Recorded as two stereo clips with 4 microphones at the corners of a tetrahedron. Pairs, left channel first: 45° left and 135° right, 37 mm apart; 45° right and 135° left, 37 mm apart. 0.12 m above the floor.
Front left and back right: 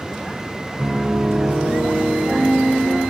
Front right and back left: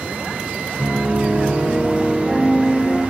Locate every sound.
0.8 s a piano: 70° right, 2.5 m